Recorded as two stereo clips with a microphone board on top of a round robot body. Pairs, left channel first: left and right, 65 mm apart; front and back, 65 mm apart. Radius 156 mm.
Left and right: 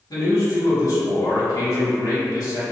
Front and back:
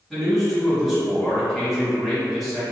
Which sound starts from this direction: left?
A man speaking, at 0.1 s.